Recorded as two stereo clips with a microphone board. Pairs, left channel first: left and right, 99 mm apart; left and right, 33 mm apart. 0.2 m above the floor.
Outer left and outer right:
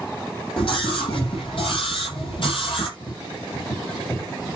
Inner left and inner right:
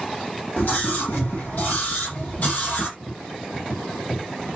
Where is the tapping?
45° left (ahead or behind), 9.5 m.